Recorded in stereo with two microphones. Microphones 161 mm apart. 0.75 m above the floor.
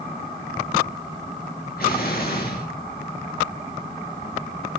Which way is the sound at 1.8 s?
70° left (ahead or behind).